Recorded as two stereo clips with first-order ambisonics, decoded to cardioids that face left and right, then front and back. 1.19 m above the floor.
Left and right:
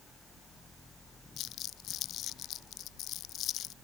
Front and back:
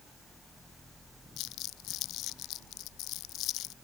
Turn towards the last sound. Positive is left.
turn(degrees=40)